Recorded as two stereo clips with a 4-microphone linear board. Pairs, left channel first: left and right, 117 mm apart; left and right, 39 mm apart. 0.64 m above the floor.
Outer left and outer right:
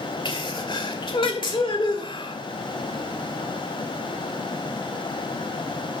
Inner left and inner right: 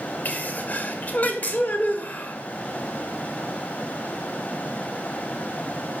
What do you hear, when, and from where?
0.2 s a sneeze: 45° left (ahead or behind), 2.0 m